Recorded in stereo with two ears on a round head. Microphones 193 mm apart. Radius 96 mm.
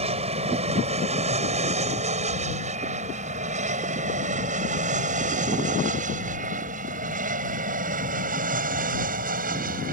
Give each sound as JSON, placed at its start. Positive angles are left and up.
{"t": 0.0, "sound": "an aircraft", "side_deg": -30}